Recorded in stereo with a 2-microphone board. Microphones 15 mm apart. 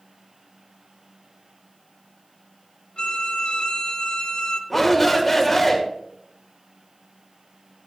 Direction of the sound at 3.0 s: 70° left (ahead or behind).